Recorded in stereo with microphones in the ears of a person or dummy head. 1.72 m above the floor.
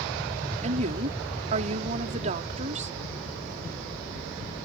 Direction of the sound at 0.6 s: 45° right (ahead or behind).